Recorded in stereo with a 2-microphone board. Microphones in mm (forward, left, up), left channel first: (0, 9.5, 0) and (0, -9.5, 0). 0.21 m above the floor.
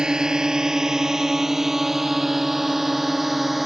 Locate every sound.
0.0 s a drone: 50° right (ahead or behind); by 3.7 s 15° right (ahead or behind)